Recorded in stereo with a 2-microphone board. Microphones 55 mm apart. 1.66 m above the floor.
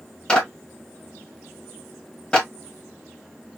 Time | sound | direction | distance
0.3 | a clap | 15° left (ahead or behind) | 2 m